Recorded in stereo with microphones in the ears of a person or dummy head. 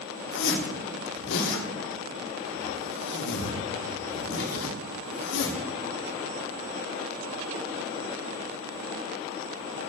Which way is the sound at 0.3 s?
60° left (ahead or behind).